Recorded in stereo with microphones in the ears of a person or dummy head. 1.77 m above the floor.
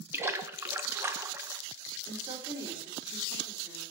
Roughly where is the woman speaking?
Right.